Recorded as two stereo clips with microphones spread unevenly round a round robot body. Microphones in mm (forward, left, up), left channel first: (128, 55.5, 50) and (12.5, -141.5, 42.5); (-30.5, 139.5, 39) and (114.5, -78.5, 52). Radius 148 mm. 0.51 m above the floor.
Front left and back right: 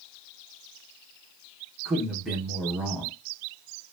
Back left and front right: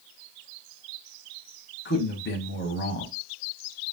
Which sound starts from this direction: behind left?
A man speaking, at 1.9 s.